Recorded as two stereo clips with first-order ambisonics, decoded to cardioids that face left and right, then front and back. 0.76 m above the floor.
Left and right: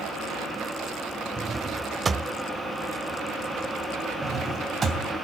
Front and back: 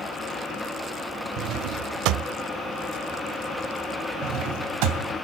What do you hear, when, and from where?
1.4 s a drawer: 160° right, 0.6 m
4.2 s a drawer: 160° right, 3 m